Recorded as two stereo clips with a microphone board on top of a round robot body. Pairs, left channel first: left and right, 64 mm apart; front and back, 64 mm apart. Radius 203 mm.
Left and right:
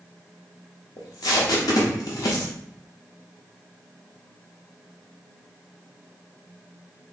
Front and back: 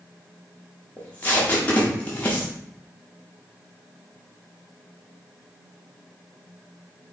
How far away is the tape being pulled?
About 0.7 m.